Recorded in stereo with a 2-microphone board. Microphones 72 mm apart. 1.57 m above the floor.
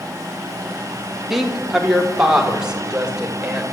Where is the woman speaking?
5° right (ahead or behind), 2.5 m; by 3.7 s 15° right (ahead or behind), 5.5 m.